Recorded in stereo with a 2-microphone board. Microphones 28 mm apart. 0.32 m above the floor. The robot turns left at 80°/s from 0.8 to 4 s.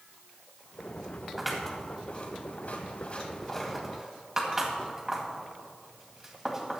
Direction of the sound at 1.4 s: 10° right (ahead or behind).